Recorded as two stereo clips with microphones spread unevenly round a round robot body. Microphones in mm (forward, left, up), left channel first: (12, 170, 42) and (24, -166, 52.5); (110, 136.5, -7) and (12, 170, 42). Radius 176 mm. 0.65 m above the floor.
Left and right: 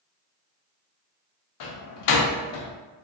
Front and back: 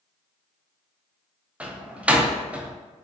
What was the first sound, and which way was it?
A door slam, 70° left.